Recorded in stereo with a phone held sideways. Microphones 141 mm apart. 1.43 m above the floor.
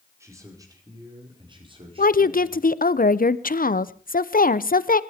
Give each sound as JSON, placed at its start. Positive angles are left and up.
{"t": 0.2, "sound": "a man speaking", "side_deg": -20, "distance_m": 5.0}
{"t": 2.0, "sound": "a woman speaking", "side_deg": 80, "distance_m": 0.7}